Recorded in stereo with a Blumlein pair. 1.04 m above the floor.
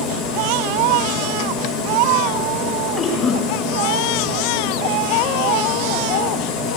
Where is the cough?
25° left, 4.5 m.